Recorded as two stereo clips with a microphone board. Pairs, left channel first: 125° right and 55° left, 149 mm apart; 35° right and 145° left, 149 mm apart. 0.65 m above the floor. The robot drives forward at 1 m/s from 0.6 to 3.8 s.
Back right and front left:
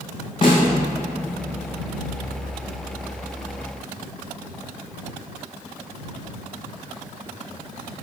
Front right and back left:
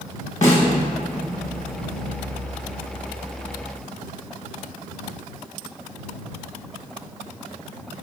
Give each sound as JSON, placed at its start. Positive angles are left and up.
{"t": 0.4, "sound": "a snare drum", "azimuth_deg": -70, "distance_m": 2.0}